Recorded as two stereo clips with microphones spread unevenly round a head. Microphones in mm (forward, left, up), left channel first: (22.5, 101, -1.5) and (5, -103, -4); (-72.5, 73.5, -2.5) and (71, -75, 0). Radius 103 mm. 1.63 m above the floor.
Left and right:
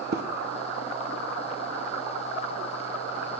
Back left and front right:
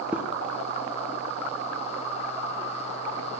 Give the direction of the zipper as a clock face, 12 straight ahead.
4 o'clock.